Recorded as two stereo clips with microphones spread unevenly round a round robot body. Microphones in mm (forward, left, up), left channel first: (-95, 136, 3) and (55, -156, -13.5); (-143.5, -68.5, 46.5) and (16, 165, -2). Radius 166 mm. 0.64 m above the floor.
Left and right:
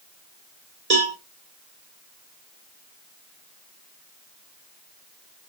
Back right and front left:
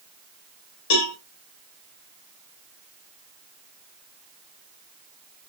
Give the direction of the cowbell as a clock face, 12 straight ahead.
4 o'clock.